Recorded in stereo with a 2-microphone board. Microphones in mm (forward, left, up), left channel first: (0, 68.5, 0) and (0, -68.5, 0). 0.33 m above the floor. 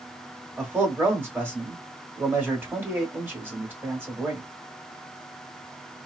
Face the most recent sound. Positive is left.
turn(degrees=-15)  # may be behind; listen again after turning